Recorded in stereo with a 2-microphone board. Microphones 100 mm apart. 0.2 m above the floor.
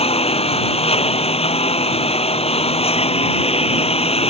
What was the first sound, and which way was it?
A lawn mower, 85° left.